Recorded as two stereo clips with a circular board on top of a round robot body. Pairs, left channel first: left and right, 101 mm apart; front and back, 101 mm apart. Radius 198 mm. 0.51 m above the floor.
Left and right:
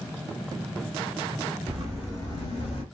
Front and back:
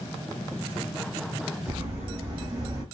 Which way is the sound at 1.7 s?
110° right.